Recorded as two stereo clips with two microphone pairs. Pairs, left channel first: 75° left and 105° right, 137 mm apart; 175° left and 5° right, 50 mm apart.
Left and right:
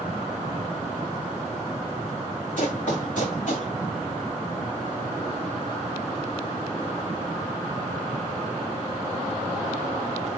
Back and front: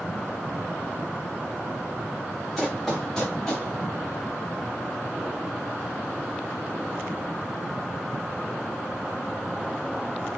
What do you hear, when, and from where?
2.6 s running footsteps: 90° left, 6 m; by 3.7 s 95° left, 5.5 m